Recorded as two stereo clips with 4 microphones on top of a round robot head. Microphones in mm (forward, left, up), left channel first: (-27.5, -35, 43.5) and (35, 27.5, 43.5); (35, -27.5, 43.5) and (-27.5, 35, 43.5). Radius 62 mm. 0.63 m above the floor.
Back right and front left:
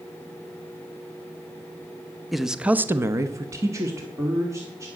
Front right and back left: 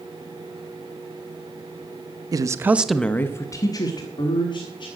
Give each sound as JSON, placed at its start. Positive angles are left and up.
{"t": 2.3, "sound": "a man speaking", "azimuth_deg": 135, "distance_m": 0.8}